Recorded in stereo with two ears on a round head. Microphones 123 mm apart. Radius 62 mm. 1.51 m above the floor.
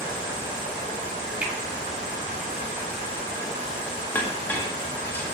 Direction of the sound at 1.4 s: 10° right (ahead or behind).